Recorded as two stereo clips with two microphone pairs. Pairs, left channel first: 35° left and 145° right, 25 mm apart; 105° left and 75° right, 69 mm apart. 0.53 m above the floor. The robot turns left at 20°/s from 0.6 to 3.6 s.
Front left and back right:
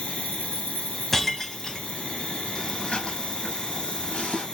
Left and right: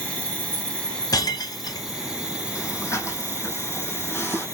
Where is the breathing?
75° left, 3.5 m; by 4.5 s 50° left, 3.5 m.